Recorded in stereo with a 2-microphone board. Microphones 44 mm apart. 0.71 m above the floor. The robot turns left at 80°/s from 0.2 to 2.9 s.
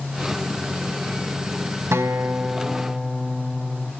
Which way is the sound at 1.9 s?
110° right.